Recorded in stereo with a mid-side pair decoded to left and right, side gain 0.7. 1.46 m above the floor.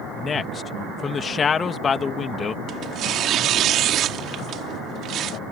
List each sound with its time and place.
0.1 s a man speaking: 30° left
2.7 s tearing paper: 50° right